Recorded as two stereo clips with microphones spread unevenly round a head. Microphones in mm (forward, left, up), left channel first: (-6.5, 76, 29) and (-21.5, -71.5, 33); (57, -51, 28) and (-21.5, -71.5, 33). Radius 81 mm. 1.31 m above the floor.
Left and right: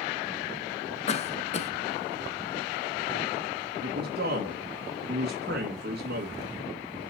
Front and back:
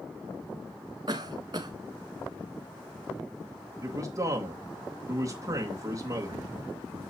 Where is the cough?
135° left, 1.3 m.